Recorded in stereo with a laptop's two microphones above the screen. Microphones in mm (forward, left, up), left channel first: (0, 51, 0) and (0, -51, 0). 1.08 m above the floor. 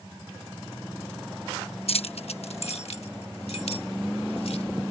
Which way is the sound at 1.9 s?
70° left (ahead or behind).